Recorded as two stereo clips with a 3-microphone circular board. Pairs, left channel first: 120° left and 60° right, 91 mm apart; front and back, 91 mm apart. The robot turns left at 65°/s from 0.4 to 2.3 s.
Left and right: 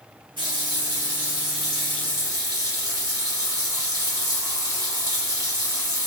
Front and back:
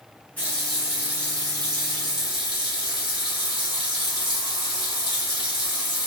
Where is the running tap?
75° right, 1.3 m; by 6.1 s 165° left, 1.3 m.